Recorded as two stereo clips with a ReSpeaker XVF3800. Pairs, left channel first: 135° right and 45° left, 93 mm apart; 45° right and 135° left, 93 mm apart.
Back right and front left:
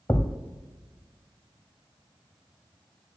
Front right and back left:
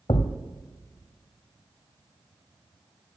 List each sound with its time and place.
0.1 s a thud: 70° right, 0.7 m